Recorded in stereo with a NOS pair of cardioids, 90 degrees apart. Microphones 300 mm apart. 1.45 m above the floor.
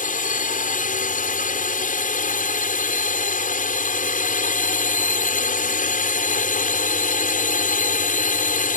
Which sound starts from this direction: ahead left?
A drone, at 0.0 s.